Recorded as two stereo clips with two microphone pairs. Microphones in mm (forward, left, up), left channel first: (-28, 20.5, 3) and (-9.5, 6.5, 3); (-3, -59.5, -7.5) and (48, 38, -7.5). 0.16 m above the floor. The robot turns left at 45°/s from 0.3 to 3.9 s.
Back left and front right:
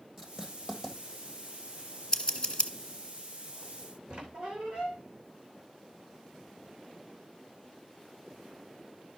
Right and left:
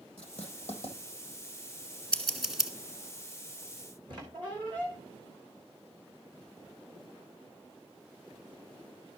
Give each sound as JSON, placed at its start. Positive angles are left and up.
{"t": 0.2, "sound": "writing", "azimuth_deg": -115, "distance_m": 3.0}
{"t": 2.1, "sound": "scissors", "azimuth_deg": 165, "distance_m": 1.6}
{"t": 4.1, "sound": "a squeak", "azimuth_deg": 15, "distance_m": 3.0}